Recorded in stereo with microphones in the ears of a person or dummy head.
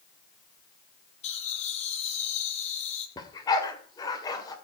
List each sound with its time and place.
1.2 s laughter: 45° left (ahead or behind), 3.5 m
3.2 s a dog barking: 25° left (ahead or behind), 2.5 m